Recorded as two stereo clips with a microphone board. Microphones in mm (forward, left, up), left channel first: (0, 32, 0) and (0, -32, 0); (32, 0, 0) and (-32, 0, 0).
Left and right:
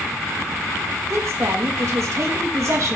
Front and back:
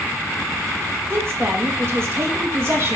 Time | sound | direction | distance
1.1 | a woman speaking | 130° right | 2.0 m